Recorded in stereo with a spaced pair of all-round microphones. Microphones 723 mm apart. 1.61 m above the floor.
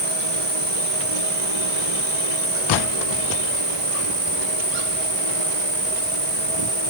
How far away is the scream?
I don't hear a scream.